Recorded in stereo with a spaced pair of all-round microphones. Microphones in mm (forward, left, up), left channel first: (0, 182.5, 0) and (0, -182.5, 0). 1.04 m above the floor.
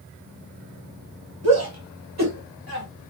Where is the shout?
65° right (ahead or behind), 1.2 m; by 2.9 s 75° right (ahead or behind), 1.9 m.